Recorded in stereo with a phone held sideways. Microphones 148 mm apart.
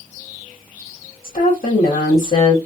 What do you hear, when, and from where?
1.2 s a woman speaking: 80° left, 1.5 m